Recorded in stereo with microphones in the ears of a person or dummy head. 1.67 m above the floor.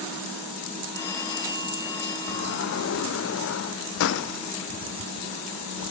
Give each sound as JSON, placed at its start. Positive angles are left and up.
{"t": 0.9, "sound": "a phone ringing", "side_deg": 25, "distance_m": 4.0}
{"t": 2.3, "sound": "a sliding door", "side_deg": 85, "distance_m": 1.0}